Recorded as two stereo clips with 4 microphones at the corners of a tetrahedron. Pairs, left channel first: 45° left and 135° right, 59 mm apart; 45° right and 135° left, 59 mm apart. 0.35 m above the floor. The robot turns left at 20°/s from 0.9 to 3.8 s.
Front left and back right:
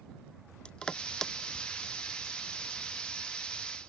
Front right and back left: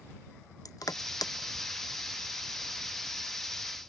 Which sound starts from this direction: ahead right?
Crushing, at 0.7 s.